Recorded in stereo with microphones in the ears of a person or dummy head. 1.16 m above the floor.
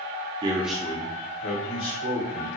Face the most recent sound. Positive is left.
turn(degrees=75)  # may be behind; listen again after turning